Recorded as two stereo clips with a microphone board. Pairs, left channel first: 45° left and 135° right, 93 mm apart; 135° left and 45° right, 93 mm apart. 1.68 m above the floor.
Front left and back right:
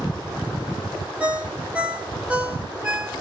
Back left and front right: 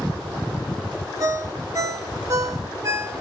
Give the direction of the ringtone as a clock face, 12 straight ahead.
2 o'clock.